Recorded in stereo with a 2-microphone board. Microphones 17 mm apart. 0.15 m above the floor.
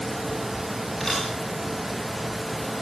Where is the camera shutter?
20° left (ahead or behind), 8.5 m.